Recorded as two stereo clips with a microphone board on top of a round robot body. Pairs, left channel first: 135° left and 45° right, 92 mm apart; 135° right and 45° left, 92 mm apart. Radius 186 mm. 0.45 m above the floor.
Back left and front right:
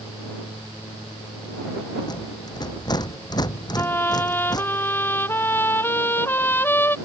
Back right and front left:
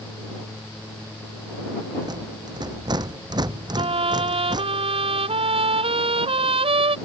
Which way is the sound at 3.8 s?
65° left.